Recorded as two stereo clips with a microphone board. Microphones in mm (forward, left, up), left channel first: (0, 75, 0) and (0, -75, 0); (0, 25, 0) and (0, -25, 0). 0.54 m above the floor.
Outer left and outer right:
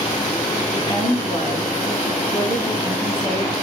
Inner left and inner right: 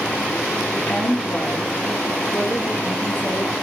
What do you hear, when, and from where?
0.7 s a woman speaking: 30° left (ahead or behind), 5 m